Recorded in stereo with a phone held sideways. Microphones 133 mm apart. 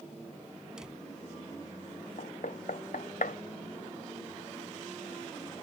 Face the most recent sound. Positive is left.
turn(degrees=80)